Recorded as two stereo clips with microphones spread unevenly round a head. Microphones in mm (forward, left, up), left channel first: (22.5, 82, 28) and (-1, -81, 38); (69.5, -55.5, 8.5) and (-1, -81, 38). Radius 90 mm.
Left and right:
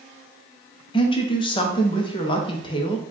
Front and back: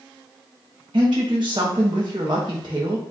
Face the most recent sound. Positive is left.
turn(degrees=145)